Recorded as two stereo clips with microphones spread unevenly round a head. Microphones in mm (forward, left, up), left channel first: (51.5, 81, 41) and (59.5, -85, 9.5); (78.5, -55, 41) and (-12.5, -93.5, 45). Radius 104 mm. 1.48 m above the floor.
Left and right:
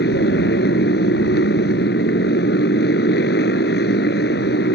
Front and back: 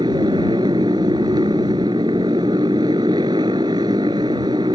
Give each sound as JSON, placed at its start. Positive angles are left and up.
{"t": 0.0, "sound": "a motorcycle", "azimuth_deg": 135}